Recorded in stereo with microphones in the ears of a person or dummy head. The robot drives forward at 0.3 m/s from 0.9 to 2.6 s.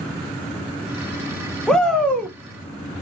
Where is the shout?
Centre (ahead or behind), 0.6 m.